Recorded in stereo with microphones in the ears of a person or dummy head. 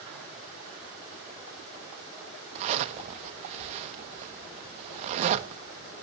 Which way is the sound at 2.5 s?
35° right (ahead or behind).